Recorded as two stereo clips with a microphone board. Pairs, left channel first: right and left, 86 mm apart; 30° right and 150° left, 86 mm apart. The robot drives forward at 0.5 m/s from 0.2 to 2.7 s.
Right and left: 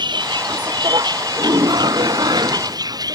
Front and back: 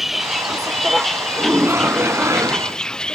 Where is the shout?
85° left; by 2.8 s 105° left.